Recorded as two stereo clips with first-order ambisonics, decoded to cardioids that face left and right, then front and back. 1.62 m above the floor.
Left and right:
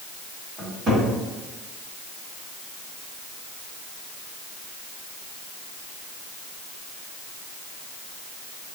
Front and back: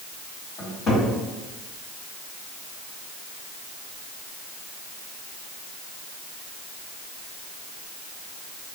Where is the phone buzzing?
I don't hear a phone buzzing.